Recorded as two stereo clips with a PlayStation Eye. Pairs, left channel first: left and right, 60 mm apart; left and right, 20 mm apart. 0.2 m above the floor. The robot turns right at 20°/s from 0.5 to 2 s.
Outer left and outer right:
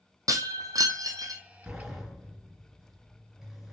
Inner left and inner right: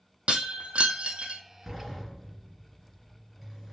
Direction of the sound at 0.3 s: 75° right (ahead or behind).